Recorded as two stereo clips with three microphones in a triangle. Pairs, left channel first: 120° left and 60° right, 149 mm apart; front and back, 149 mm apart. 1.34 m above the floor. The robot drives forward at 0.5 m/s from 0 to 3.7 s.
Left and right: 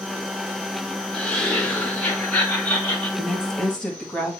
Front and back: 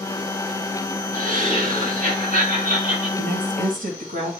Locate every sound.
1.1 s laughter: 155° right, 4 m; by 3.1 s 160° right, 5 m
3.2 s a woman speaking: 150° right, 1.5 m; by 4.3 s 155° right, 1.8 m